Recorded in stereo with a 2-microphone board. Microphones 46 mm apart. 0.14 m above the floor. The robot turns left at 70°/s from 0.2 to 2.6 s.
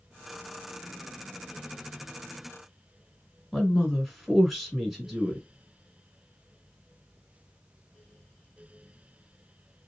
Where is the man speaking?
Centre (ahead or behind), 1.4 m.